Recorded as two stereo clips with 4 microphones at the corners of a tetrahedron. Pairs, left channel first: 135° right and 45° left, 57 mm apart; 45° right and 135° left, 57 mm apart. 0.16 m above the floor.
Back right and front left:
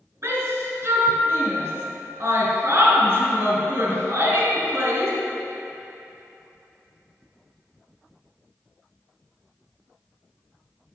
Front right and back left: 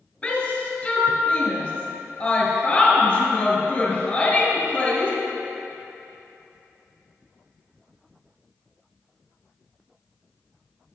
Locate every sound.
0.2 s a shout: 20° left, 2 m